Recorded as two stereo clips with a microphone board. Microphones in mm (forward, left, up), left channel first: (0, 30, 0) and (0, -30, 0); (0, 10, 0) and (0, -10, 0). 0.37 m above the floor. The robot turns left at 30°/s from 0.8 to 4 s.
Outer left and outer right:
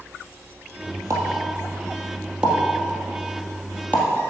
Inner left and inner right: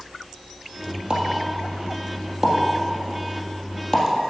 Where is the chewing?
I don't hear chewing.